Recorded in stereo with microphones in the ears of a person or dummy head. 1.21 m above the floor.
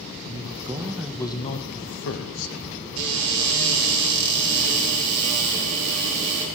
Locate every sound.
0.2 s a man speaking: 40° right (ahead or behind), 1.1 m; by 2.5 s 75° left (ahead or behind), 1.4 m
3.0 s a cupboard door: 80° right, 4.5 m